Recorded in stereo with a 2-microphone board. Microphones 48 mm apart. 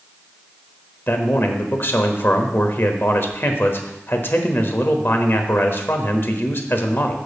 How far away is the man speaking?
About 1.1 m.